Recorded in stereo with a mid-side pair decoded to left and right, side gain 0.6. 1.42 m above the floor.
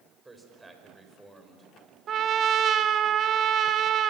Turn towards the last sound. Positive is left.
turn(degrees=-45)